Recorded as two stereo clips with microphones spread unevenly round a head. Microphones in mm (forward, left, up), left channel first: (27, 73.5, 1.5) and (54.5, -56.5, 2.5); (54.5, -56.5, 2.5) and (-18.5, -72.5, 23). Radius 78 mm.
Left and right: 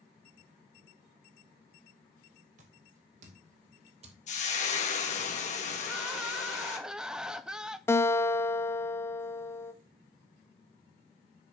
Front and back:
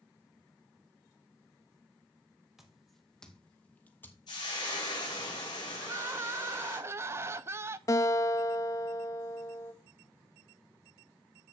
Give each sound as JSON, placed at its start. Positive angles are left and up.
{"t": 2.6, "sound": "footsteps", "azimuth_deg": -95, "distance_m": 2.5}
{"t": 4.3, "sound": "frying", "azimuth_deg": 70, "distance_m": 2.5}
{"t": 5.8, "sound": "crying", "azimuth_deg": -160, "distance_m": 0.5}
{"t": 7.9, "sound": "a guitar", "azimuth_deg": 50, "distance_m": 0.9}